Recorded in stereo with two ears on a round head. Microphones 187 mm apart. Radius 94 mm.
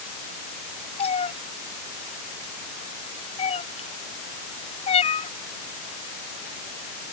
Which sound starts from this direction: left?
A cat meowing, at 1.0 s.